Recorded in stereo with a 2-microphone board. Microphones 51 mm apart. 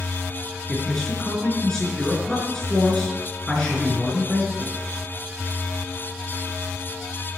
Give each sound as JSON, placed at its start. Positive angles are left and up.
{"t": 0.7, "sound": "a man speaking", "side_deg": 15, "distance_m": 5.0}